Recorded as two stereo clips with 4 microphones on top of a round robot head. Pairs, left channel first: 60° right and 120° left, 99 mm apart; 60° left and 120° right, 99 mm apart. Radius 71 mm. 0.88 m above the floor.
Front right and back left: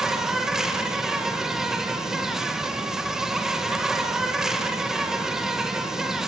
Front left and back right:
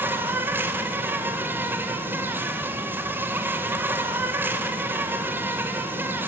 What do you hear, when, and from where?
0.0 s an insect: 160° right, 1.6 m